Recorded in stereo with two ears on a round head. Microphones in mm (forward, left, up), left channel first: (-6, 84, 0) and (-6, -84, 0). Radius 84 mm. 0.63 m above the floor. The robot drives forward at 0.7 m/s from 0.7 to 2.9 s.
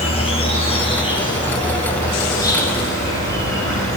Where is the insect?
30° left (ahead or behind), 2 m; by 4.0 s 20° left (ahead or behind), 3.5 m.